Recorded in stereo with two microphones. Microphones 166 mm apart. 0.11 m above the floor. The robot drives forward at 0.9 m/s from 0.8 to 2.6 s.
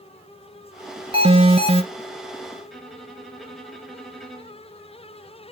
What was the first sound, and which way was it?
An alarm, 35° right (ahead or behind).